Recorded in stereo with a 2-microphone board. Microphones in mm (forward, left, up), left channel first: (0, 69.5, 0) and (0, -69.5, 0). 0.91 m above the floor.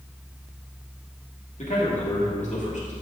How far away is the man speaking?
About 1.7 m.